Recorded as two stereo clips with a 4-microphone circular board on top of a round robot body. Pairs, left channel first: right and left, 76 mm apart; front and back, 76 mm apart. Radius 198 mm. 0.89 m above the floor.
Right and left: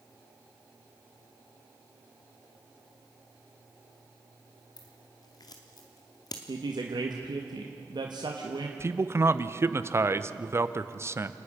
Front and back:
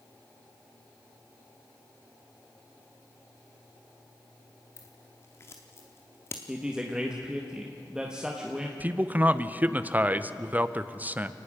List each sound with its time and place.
4.8 s scissors: 55° right, 0.7 m
6.5 s a woman speaking: 100° left, 1.6 m
8.8 s a man speaking: 125° left, 1.0 m